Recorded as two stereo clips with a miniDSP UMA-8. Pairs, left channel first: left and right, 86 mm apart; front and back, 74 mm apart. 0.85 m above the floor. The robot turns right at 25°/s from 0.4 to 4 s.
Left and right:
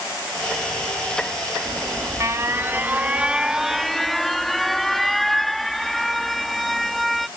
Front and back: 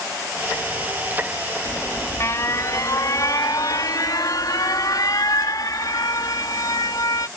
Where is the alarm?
55° right; by 7.3 s straight ahead.